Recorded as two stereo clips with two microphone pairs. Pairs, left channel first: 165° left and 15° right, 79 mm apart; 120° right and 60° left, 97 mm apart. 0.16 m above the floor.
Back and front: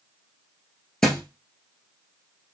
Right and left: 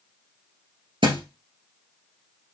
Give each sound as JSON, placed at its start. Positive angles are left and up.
{"t": 1.0, "sound": "a thud", "azimuth_deg": 80, "distance_m": 1.4}